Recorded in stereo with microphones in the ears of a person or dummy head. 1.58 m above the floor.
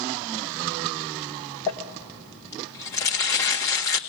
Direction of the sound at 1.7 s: 20° left (ahead or behind).